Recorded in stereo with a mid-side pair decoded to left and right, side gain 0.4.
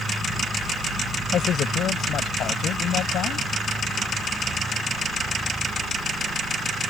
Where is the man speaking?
70° left; by 3.5 s 80° left.